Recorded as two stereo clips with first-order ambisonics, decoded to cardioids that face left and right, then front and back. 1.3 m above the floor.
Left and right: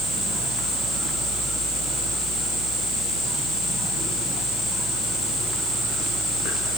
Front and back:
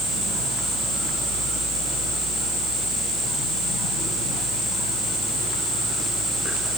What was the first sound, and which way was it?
Only background noise.